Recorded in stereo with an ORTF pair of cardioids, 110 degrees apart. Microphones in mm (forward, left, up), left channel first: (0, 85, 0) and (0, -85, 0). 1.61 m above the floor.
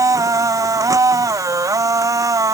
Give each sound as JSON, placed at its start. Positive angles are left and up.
{"t": 0.0, "sound": "a machine running", "azimuth_deg": -20}